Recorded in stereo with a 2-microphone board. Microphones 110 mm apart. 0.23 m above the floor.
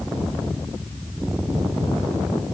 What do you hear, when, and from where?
Only background noise.